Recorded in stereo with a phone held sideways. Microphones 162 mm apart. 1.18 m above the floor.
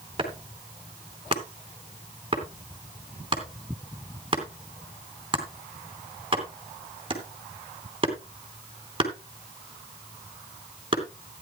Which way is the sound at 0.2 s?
35° right (ahead or behind).